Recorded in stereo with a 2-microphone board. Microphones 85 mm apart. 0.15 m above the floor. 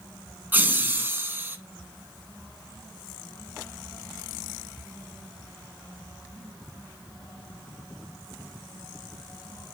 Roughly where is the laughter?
Right.